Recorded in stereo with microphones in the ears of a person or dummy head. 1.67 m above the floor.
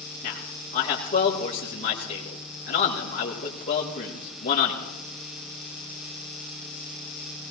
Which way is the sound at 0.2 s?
35° left (ahead or behind).